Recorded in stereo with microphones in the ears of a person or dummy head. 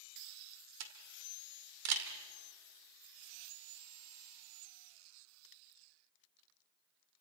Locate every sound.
0.8 s a camera shutter: 80° right, 2.5 m